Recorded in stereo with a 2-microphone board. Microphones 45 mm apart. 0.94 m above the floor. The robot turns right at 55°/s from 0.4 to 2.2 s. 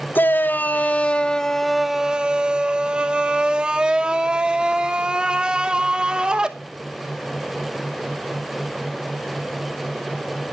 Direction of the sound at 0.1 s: 105° left.